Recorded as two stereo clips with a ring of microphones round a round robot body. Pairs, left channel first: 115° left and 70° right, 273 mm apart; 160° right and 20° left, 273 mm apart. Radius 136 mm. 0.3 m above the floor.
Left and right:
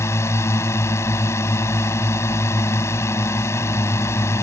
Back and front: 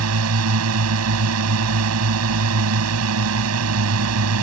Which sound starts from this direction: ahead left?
A drone, at 0.0 s.